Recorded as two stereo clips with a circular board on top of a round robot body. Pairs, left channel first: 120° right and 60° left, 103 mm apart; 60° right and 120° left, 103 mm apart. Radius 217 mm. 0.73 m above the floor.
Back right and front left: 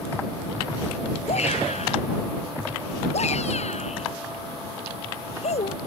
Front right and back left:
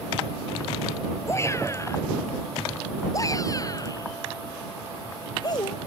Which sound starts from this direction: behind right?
A shout, at 1.3 s.